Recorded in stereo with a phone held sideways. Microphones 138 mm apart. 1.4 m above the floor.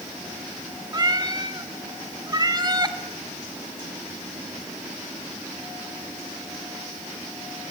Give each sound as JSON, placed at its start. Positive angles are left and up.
{"t": 0.9, "sound": "a cat meowing", "side_deg": -30, "distance_m": 1.2}